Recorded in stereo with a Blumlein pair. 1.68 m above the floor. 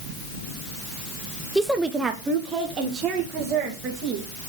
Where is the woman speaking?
Straight ahead, 0.6 m; by 4.3 s 35° right, 2.5 m.